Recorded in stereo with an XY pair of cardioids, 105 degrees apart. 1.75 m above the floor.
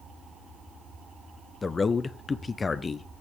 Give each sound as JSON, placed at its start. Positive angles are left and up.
{"t": 1.6, "sound": "a man speaking", "azimuth_deg": 30, "distance_m": 0.7}